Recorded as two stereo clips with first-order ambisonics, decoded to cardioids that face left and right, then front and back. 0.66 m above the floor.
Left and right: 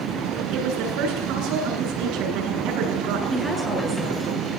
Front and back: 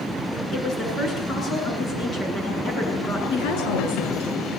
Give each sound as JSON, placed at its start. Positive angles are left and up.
{"t": 0.5, "sound": "a woman speaking", "azimuth_deg": -65, "distance_m": 8.5}
{"t": 3.3, "sound": "a woman speaking", "azimuth_deg": -15, "distance_m": 8.5}